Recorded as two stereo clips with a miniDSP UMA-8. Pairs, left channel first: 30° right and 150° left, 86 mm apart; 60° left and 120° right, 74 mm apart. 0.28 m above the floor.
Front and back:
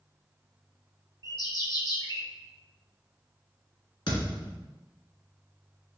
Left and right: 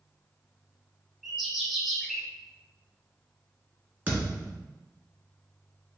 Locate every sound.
1.2 s a bird: 35° right, 1.0 m
4.1 s a thud: 55° right, 1.6 m